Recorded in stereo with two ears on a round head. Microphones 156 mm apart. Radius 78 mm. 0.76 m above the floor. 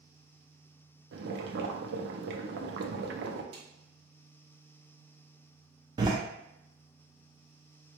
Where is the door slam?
25° right (ahead or behind), 0.6 m.